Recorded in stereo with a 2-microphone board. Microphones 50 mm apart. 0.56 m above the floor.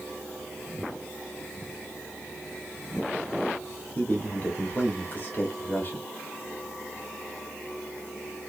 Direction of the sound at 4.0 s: 35° left (ahead or behind).